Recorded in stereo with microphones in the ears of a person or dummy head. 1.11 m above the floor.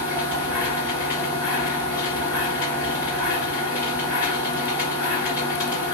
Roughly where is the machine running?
Centre.